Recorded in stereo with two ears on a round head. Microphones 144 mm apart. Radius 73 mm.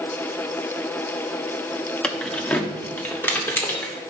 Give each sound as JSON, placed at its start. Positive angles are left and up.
{"t": 2.0, "sound": "keys jangling", "side_deg": 5, "distance_m": 0.8}